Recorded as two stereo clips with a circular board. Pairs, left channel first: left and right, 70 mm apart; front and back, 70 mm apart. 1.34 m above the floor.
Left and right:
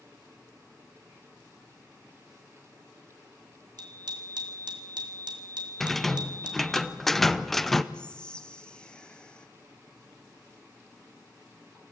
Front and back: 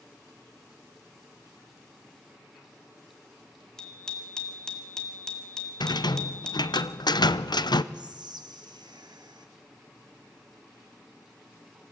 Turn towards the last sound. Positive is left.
turn(degrees=170)